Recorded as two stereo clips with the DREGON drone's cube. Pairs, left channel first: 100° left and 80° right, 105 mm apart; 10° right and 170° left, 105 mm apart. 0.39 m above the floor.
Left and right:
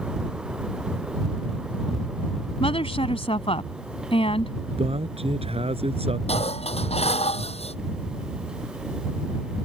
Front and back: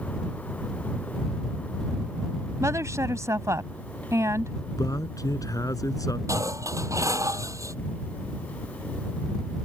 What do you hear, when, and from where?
2.6 s a woman speaking: 110° left
4.8 s a man speaking: 65° right
6.3 s dishes clattering: 110° left